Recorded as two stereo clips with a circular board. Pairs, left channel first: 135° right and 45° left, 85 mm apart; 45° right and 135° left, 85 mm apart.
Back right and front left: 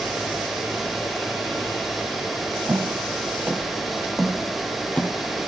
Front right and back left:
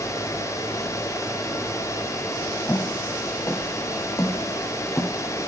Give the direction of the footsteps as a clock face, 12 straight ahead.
12 o'clock.